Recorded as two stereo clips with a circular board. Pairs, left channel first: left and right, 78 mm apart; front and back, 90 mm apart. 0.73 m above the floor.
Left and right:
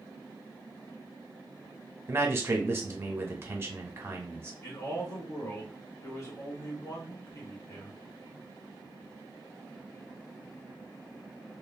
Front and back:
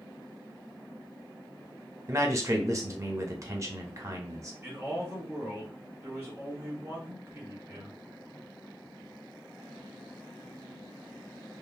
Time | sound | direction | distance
2.1 | a man speaking | 135° right | 0.7 m
4.6 | a man speaking | 120° left | 1.7 m